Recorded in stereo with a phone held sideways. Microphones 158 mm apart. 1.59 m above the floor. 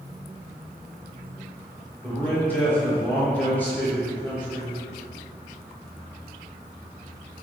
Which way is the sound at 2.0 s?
10° left (ahead or behind).